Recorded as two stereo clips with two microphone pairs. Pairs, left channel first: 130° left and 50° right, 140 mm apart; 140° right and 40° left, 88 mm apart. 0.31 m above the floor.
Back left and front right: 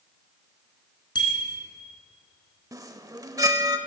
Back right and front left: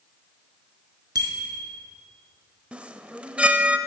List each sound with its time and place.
1.1 s a bicycle bell: 75° left, 3 m
2.7 s a chime: 25° right, 0.8 m